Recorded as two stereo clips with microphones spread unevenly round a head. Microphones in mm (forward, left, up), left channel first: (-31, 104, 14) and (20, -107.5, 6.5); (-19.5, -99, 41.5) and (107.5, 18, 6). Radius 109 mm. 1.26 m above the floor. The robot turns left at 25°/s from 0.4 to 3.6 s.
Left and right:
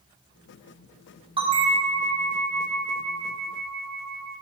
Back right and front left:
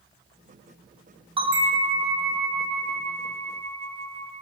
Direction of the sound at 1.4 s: 10° right.